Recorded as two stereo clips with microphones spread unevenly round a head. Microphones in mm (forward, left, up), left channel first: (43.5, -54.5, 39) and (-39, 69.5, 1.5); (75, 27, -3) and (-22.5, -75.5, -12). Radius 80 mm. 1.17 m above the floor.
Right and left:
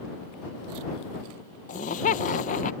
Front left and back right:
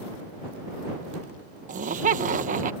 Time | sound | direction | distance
1.7 | laughter | 100° right | ?